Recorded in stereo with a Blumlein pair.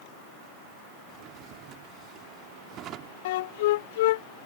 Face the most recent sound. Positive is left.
turn(degrees=55)